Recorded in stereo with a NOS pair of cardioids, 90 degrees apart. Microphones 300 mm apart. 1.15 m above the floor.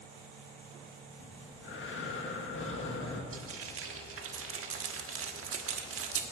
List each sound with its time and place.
1.2 s breathing: 45° left, 1.6 m
3.3 s frying: 45° right, 1.4 m